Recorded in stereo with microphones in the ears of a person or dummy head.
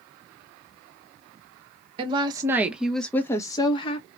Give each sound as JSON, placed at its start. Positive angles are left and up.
{"t": 2.0, "sound": "a woman speaking", "side_deg": -35, "distance_m": 1.0}